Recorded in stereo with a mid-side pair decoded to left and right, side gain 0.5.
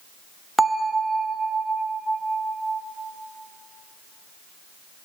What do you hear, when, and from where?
0.6 s a bell: 10° right, 0.7 m